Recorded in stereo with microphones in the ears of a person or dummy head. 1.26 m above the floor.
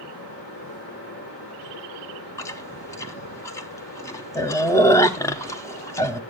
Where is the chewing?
15° left (ahead or behind), 0.6 m.